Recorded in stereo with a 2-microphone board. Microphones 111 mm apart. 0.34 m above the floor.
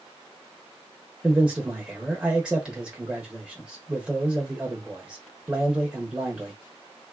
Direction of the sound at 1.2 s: 10° right (ahead or behind).